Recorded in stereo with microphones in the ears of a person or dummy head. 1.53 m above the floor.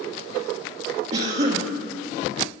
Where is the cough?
40° right (ahead or behind), 1.1 m.